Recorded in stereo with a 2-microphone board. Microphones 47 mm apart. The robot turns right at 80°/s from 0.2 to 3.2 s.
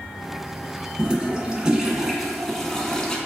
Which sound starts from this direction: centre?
A toilet flushing, at 1.0 s.